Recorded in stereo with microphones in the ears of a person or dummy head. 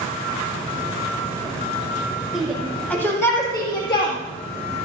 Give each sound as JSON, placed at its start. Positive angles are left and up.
{"t": 2.3, "sound": "a shout", "side_deg": -5, "distance_m": 2.0}